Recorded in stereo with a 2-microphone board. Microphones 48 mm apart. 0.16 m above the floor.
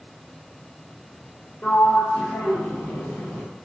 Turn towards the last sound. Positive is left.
turn(degrees=45)  # may be behind; listen again after turning